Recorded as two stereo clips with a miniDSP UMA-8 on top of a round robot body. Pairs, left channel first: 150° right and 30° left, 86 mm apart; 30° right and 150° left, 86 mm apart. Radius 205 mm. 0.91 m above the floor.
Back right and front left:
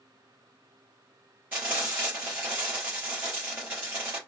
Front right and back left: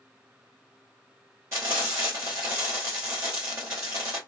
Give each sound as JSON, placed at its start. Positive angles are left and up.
{"t": 1.5, "sound": "frying", "azimuth_deg": 100, "distance_m": 0.7}